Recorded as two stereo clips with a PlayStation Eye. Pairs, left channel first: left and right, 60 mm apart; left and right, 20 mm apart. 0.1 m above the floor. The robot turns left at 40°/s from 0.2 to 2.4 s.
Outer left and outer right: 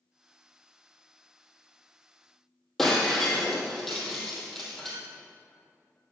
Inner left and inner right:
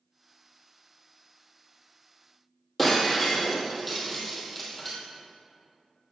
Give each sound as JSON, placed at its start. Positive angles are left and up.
{"t": 2.8, "sound": "breaking glass", "side_deg": 5, "distance_m": 2.0}